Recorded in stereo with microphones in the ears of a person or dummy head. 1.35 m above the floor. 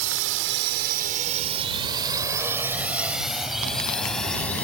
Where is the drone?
75° right (ahead or behind); by 4.6 s 5° left (ahead or behind).